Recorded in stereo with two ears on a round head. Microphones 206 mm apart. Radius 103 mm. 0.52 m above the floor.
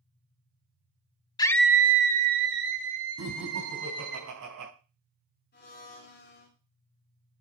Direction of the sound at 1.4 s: 20° left (ahead or behind).